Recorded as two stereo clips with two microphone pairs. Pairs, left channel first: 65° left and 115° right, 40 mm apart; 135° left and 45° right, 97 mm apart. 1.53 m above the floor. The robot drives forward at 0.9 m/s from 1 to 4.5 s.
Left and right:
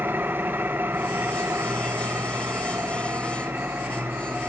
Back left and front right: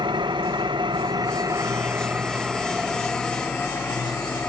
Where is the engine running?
80° right, 1.4 m; by 4.5 s 155° right, 3.5 m.